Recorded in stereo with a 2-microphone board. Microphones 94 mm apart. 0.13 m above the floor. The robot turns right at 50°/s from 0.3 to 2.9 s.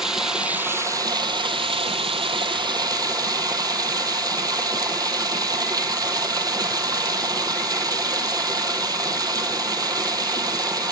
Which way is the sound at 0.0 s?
175° right.